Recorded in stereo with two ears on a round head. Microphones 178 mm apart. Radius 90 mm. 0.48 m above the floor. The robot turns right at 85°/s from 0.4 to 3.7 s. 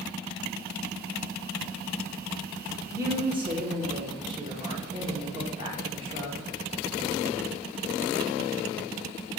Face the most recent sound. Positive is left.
turn(degrees=-25)  # may be behind; listen again after turning